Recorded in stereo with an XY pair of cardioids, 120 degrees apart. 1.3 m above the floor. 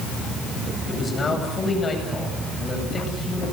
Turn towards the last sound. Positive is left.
turn(degrees=25)